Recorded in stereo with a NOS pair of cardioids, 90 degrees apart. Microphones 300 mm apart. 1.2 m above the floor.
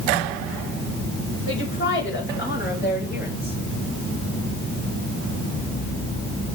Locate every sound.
1.5 s a woman speaking: 45° left, 7 m; by 3.6 s 30° left, 7 m